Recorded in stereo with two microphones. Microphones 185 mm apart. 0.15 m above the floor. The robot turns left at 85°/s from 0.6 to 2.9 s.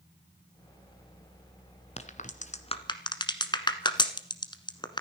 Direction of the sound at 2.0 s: 35° left (ahead or behind).